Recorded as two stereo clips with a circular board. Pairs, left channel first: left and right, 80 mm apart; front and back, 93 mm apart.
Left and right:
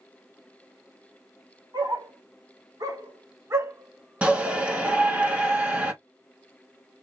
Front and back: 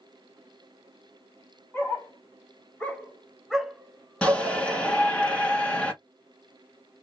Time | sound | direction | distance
1.7 | a dog barking | 65° right | 1.5 m
4.2 | a shout | 50° right | 1.3 m